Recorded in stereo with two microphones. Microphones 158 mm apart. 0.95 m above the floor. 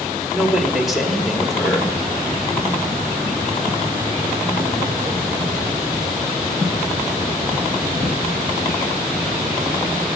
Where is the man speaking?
Centre (ahead or behind), 1.7 m.